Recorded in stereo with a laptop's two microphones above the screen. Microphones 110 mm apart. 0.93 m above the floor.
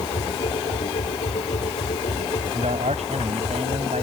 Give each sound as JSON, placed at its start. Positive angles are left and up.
{"t": 0.0, "sound": "a machine running", "side_deg": 80}
{"t": 2.5, "sound": "a man speaking", "side_deg": -85}